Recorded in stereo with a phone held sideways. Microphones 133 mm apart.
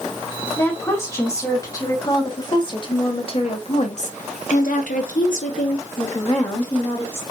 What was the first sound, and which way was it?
A woman speaking, 20° left (ahead or behind).